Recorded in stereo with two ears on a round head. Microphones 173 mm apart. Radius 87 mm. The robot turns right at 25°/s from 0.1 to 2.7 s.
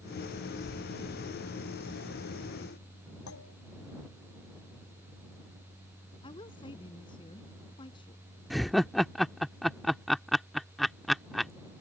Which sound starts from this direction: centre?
Laughter, at 8.5 s.